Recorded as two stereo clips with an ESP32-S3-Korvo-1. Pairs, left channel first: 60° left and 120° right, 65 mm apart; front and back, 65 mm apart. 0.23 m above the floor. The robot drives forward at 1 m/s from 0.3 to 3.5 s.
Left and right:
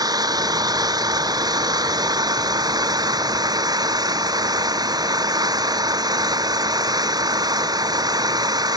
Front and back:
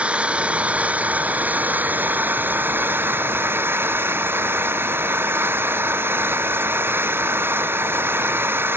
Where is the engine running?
110° right; by 8.8 s 125° right.